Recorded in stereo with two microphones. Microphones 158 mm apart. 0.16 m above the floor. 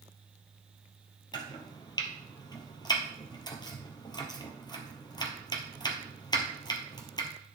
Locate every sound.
1.3 s chopping: 25° left (ahead or behind), 2 m